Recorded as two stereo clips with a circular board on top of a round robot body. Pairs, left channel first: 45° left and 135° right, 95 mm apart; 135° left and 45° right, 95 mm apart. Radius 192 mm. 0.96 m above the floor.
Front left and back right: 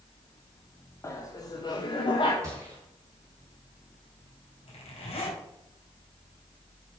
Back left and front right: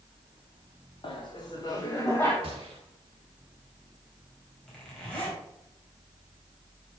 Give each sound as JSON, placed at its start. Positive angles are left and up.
{"t": 1.0, "sound": "laughter", "azimuth_deg": 105, "distance_m": 1.1}
{"t": 2.4, "sound": "a gunshot", "azimuth_deg": -75, "distance_m": 0.8}
{"t": 4.7, "sound": "a zipper", "azimuth_deg": 55, "distance_m": 3.5}